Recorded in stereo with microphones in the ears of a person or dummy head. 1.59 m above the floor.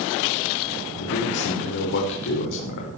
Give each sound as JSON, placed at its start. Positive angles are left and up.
{"t": 1.0, "sound": "a man speaking", "side_deg": 50, "distance_m": 5.0}